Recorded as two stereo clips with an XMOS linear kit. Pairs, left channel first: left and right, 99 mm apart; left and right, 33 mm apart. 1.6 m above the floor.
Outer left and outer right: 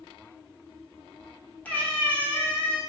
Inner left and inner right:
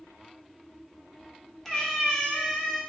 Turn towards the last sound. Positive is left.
turn(degrees=15)  # may be behind; listen again after turning